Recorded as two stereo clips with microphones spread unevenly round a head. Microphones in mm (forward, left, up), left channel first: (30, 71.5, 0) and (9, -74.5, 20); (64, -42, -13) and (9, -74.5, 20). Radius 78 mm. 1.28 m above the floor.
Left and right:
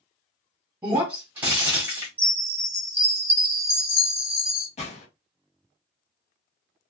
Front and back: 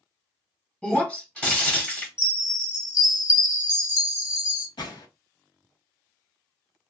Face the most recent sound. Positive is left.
turn(degrees=35)